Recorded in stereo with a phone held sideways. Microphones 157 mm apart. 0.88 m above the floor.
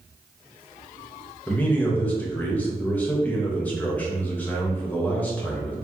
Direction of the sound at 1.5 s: 10° left (ahead or behind).